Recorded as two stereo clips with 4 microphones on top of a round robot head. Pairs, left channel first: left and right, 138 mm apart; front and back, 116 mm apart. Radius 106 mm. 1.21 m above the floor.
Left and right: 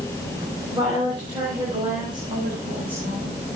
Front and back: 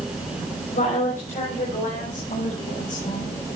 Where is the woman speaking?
20° right, 4.5 m; by 3.4 s 25° right, 7.5 m.